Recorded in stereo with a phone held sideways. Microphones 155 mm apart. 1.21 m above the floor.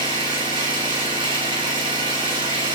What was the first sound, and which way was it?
An engine running, 35° right (ahead or behind).